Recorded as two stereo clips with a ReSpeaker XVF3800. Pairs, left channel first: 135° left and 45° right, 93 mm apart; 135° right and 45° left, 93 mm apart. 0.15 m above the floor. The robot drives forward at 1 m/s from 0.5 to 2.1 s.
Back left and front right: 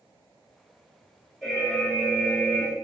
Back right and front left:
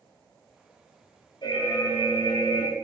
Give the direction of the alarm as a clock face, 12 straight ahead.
5 o'clock.